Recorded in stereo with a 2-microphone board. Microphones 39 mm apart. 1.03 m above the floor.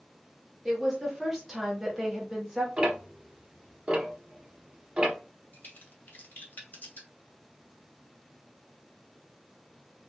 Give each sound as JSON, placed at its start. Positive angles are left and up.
{"t": 0.7, "sound": "a woman speaking", "side_deg": -10, "distance_m": 1.5}
{"t": 2.8, "sound": "ticking", "side_deg": -25, "distance_m": 0.9}
{"t": 5.5, "sound": "a crack", "side_deg": 55, "distance_m": 1.1}